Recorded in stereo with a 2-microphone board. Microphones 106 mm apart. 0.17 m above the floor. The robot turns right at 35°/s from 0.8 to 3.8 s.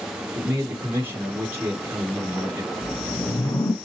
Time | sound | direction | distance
0.3 | a man speaking | 20° right (ahead or behind) | 1.1 m
2.8 | a whoosh | 40° left | 1.0 m